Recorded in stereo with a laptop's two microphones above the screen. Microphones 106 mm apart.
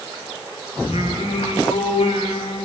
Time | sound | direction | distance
0.8 | singing | 85° left | 5.5 m